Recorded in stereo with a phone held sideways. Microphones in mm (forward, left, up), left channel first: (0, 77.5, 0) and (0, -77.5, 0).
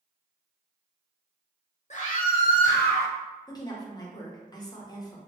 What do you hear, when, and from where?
1.9 s a scream: 50° left (ahead or behind), 0.9 m; by 3.1 s 80° left, 1.4 m
3.5 s a woman speaking: 25° left (ahead or behind), 0.7 m